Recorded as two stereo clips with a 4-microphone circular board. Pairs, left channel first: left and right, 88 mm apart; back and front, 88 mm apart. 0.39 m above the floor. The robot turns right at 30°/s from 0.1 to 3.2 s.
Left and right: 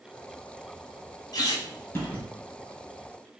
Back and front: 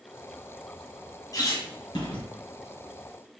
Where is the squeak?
135° left, 2 m; by 2.2 s 160° left, 2 m.